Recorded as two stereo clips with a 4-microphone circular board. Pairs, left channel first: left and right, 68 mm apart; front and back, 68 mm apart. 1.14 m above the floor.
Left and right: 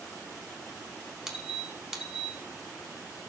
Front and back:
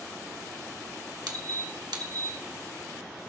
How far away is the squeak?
About 1.4 m.